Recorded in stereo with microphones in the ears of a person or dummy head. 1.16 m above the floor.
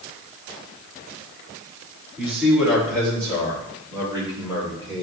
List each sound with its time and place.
2.2 s a man speaking: 10° right (ahead or behind), 4 m; by 5.0 s 25° right (ahead or behind), 5.5 m